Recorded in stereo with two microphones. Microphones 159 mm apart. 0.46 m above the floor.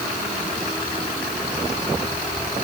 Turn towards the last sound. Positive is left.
No sound to turn to.